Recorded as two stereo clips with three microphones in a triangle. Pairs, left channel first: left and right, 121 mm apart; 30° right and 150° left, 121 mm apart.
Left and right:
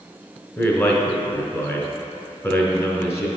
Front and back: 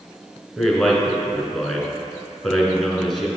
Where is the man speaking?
60° left, 1.2 m.